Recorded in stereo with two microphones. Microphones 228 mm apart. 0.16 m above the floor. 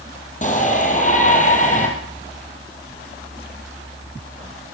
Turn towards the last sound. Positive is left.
turn(degrees=35)  # may be behind; listen again after turning